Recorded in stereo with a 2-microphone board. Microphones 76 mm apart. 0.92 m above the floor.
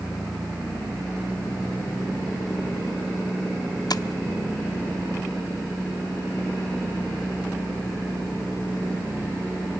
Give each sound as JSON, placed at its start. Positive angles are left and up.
{"t": 3.9, "sound": "tapping", "side_deg": 60, "distance_m": 0.6}